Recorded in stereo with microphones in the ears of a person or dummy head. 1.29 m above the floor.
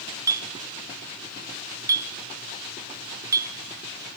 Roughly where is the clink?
Right.